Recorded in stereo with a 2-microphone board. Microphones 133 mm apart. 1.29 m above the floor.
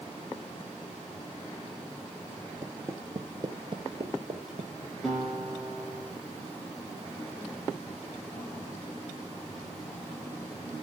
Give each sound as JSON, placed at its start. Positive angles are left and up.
{"t": 2.6, "sound": "footsteps", "side_deg": -20, "distance_m": 1.4}
{"t": 5.0, "sound": "a guitar", "side_deg": 0, "distance_m": 9.5}